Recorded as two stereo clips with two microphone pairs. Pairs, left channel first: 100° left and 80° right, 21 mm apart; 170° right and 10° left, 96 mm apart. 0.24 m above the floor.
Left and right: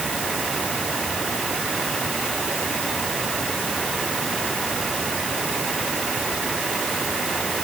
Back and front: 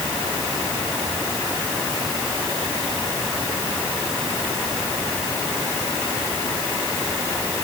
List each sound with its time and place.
Only background noise.